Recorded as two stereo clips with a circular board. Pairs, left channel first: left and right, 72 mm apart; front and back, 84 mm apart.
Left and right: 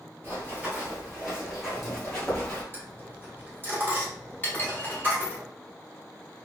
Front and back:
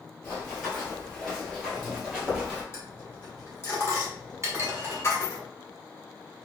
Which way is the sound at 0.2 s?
60° right.